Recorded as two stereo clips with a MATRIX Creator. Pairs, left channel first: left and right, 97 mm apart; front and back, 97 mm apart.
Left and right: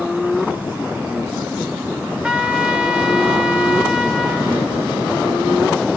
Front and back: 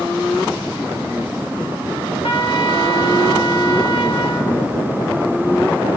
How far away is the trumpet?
About 1.4 m.